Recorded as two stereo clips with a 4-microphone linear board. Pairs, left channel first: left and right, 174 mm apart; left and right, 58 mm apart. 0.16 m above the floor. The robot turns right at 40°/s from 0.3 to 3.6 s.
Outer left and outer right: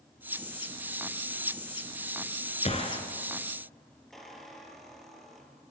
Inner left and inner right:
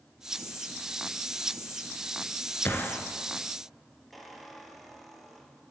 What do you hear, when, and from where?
2.6 s a gunshot: 40° left (ahead or behind), 1.3 m; by 3.0 s 25° left (ahead or behind), 1.3 m
4.1 s a squeak: centre (ahead or behind), 1.3 m